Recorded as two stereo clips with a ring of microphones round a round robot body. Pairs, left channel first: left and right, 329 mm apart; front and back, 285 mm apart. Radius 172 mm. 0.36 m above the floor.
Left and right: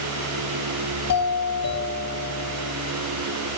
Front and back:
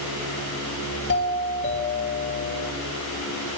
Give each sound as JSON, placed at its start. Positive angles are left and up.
{"t": 1.1, "sound": "a doorbell", "azimuth_deg": 50, "distance_m": 4.0}